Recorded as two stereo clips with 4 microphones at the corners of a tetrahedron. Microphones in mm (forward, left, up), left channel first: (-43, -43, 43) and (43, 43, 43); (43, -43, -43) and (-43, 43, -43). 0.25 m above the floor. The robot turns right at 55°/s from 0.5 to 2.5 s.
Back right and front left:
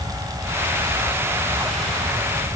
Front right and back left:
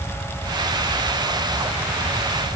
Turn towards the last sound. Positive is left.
No sound to turn to.